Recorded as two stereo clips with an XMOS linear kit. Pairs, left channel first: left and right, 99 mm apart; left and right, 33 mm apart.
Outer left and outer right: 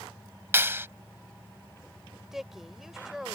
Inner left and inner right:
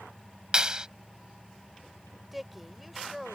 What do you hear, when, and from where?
0.5 s a clap: 25° right (ahead or behind)
2.3 s a woman speaking: 5° right (ahead or behind)